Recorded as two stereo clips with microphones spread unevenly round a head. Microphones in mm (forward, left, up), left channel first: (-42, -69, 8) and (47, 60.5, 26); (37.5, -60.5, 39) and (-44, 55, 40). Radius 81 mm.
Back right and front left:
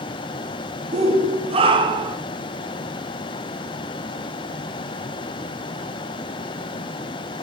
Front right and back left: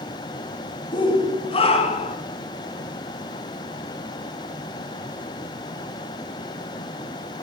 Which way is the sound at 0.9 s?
5° left.